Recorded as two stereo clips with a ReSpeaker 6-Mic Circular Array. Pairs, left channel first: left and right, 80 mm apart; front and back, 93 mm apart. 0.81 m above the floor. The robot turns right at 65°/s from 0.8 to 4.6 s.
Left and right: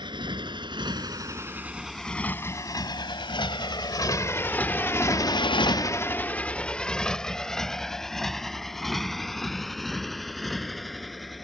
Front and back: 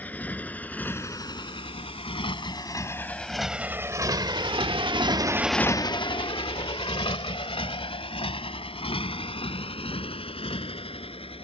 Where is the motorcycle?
75° right; by 11.4 s straight ahead.